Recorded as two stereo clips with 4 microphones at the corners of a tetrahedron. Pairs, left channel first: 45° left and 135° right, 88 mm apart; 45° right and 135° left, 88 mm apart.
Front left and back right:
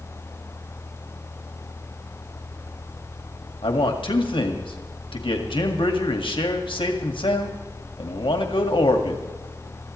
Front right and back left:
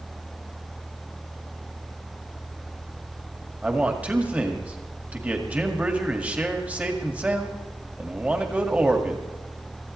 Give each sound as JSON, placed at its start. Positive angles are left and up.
{"t": 3.6, "sound": "a man speaking", "azimuth_deg": 60, "distance_m": 2.0}